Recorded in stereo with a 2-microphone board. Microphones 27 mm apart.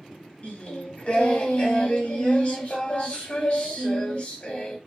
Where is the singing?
45° left (ahead or behind), 1.2 m.